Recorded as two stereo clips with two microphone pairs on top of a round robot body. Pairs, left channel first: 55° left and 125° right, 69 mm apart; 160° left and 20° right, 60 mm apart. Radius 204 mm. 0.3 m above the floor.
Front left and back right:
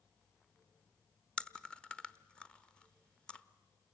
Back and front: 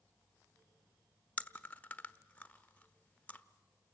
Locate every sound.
1.4 s chewing: 115° left, 1.2 m